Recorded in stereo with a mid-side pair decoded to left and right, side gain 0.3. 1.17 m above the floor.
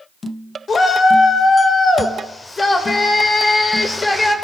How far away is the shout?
About 5 m.